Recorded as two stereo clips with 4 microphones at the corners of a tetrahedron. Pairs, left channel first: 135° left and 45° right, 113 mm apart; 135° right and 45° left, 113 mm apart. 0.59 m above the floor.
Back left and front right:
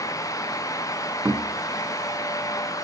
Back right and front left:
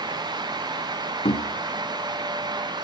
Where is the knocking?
115° right, 1.6 m.